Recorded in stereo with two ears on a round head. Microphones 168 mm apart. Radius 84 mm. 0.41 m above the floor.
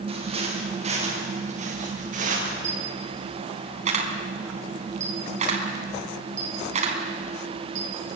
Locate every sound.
0.1 s footsteps: 30° right (ahead or behind), 10 m; by 2.5 s 45° right (ahead or behind), 10.5 m
2.6 s a camera shutter: 40° right (ahead or behind), 4 m